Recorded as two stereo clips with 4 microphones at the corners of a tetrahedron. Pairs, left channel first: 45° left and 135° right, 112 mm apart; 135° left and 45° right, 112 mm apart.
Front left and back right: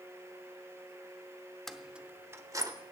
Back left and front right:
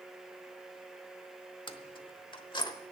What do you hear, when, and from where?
1.7 s keys jangling: 130° left, 0.8 m; by 2.7 s 175° left, 1.1 m